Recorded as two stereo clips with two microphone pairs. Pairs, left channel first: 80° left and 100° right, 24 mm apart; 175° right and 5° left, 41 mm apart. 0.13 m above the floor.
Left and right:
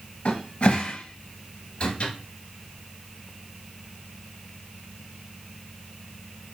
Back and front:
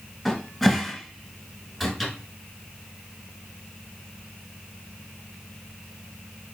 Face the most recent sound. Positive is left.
turn(degrees=100)